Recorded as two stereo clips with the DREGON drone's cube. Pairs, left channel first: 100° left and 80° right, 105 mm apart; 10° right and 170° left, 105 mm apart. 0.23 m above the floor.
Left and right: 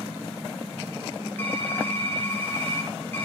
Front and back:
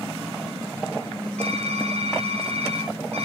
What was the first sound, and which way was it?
Typing on a keyboard, 170° left.